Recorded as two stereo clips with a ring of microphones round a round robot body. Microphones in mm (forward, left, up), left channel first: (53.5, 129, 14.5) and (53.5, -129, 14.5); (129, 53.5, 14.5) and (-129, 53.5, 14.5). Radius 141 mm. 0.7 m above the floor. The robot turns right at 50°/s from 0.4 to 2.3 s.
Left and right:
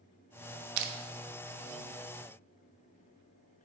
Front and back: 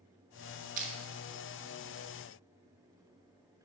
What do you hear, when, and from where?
0.8 s crushing: 120° right, 0.6 m; by 0.9 s 110° right, 0.6 m